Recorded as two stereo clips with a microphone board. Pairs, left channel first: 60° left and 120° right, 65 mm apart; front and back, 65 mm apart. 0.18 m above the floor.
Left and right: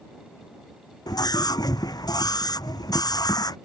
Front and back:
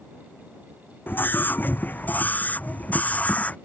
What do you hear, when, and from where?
1.1 s a scream: 60° left; by 3.6 s 70° left